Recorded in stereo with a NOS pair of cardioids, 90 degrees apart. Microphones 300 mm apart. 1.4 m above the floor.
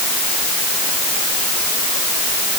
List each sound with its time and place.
Only background noise.